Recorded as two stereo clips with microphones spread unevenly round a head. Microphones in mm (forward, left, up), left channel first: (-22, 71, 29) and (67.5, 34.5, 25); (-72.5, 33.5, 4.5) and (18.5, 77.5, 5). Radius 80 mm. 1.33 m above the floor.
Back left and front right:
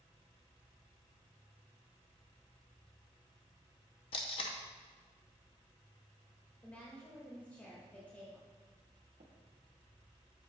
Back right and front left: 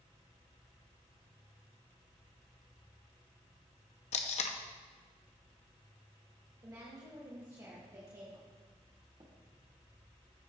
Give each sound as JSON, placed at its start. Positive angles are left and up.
{"t": 4.1, "sound": "tape being pulled", "azimuth_deg": -155, "distance_m": 0.7}
{"t": 6.6, "sound": "a woman speaking", "azimuth_deg": 85, "distance_m": 2.0}
{"t": 9.2, "sound": "tapping", "azimuth_deg": -30, "distance_m": 1.2}